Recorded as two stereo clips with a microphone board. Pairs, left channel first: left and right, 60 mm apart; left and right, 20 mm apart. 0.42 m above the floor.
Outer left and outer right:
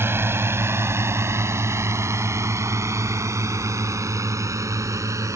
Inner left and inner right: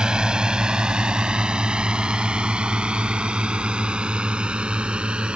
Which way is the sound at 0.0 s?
40° right (ahead or behind).